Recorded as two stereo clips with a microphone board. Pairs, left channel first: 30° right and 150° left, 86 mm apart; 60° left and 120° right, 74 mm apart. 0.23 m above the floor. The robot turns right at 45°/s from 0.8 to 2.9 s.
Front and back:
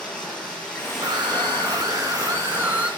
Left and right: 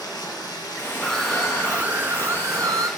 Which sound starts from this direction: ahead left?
Running water, at 0.0 s.